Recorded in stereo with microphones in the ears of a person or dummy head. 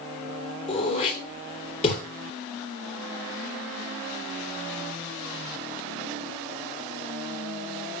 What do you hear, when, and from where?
0.7 s throat clearing: 40° left (ahead or behind), 3 m